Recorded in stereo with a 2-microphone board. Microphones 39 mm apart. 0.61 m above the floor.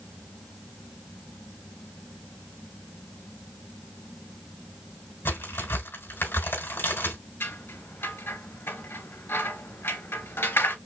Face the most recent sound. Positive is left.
turn(degrees=85)